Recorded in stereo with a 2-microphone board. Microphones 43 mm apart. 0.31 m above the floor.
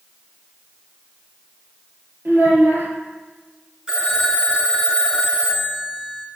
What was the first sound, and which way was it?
A child speaking, 50° right (ahead or behind).